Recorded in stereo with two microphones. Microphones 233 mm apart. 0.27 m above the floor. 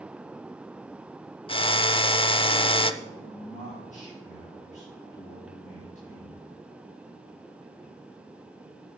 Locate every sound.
1.5 s a drill: 20° left (ahead or behind), 0.5 m
3.0 s a man speaking: 30° left (ahead or behind), 4.5 m